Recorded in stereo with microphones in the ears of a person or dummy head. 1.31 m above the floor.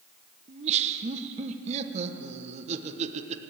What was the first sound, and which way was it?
Laughter, 35° right (ahead or behind).